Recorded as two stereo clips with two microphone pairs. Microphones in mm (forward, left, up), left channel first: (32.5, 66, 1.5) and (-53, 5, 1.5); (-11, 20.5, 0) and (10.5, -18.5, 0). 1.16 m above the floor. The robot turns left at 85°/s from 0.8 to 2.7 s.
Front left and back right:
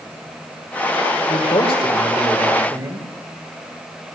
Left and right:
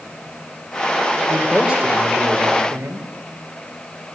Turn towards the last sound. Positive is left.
turn(degrees=-80)